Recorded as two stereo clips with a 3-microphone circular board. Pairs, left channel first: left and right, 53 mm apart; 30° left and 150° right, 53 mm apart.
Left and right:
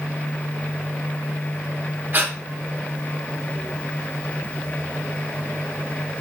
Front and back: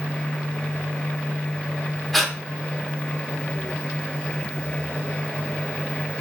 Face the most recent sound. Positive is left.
turn(degrees=-55)